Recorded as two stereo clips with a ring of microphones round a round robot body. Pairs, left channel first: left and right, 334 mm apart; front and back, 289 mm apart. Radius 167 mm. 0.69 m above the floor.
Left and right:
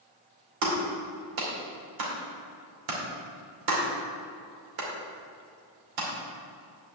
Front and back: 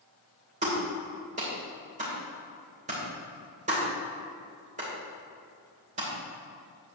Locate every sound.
0.6 s a clap: 110° right, 2.5 m